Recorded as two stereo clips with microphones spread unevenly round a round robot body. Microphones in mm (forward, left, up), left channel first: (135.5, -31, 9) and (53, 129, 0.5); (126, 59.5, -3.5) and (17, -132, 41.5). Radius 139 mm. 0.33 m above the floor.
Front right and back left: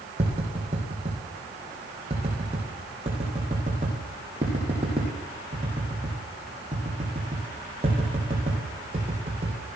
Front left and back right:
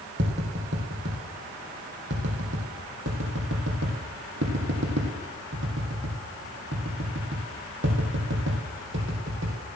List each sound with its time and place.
0.2 s tapping: 170° right, 3.5 m